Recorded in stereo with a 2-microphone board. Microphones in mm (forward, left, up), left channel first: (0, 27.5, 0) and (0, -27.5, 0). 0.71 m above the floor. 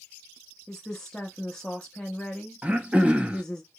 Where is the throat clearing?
25° right (ahead or behind), 0.5 m.